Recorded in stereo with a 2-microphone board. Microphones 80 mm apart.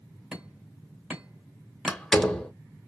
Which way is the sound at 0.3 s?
10° right (ahead or behind).